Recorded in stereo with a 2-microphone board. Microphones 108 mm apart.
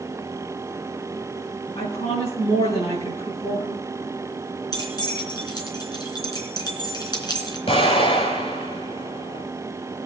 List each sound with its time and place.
1.8 s a woman speaking: 75° left (ahead or behind), 4.5 m
4.7 s keys jangling: 40° left (ahead or behind), 3 m
7.7 s an explosion: 65° left (ahead or behind), 6.5 m